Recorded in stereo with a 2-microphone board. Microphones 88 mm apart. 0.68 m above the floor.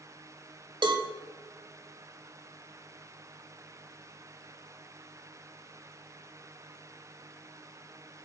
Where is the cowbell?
60° right (ahead or behind), 0.8 m.